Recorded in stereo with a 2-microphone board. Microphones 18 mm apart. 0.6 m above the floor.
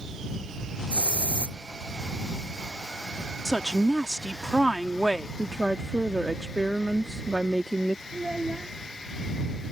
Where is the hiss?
75° left (ahead or behind).